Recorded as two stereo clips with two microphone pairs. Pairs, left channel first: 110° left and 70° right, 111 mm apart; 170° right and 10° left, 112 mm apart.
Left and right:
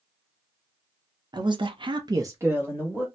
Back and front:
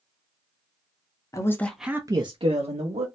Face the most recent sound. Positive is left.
turn(degrees=10)